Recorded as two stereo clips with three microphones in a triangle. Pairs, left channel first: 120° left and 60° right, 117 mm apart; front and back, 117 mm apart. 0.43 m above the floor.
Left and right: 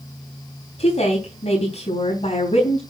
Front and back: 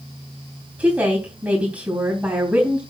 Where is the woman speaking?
105° left, 3.5 m.